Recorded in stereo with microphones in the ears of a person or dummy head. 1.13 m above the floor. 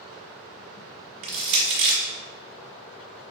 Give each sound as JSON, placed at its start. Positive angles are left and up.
{"t": 1.2, "sound": "crushing", "side_deg": -45, "distance_m": 1.4}